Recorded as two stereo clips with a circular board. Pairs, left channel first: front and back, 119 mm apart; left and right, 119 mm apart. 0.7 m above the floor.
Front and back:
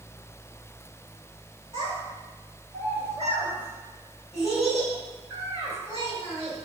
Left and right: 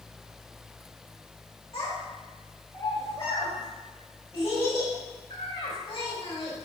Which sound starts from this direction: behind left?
A child speaking, at 1.7 s.